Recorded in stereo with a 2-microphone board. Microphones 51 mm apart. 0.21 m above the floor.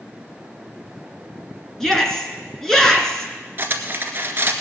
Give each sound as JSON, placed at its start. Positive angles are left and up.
{"t": 1.8, "sound": "a shout", "side_deg": 10, "distance_m": 2.5}
{"t": 3.6, "sound": "cutlery clinking", "side_deg": -45, "distance_m": 1.7}